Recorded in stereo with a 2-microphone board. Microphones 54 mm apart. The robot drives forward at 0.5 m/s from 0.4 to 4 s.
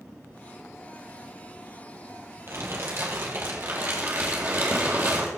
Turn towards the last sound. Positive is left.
turn(degrees=-40)  # may be behind; listen again after turning